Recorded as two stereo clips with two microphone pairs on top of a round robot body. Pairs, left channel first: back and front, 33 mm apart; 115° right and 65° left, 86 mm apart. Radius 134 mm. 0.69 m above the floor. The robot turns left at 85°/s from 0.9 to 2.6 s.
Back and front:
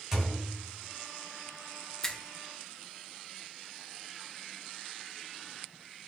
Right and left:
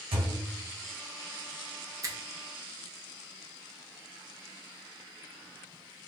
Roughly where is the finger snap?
Behind left.